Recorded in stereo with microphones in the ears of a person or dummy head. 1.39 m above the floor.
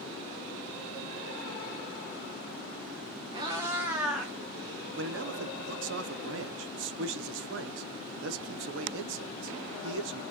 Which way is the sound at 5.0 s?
70° right (ahead or behind).